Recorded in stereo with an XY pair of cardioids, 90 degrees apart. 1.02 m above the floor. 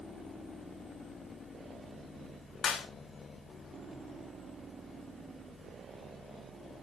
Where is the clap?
65° left, 3 m.